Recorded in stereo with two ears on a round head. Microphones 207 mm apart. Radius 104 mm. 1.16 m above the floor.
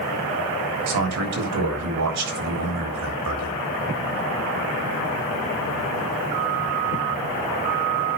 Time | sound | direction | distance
0.9 | a man speaking | 80° right | 3.5 m